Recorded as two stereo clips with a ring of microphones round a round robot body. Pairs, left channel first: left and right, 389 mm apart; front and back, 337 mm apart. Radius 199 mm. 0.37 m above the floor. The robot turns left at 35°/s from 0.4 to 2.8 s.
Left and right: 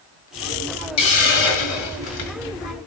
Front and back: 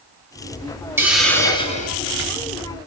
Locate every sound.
1.0 s a hiss: 100° left, 4 m; by 2.4 s 50° left, 4 m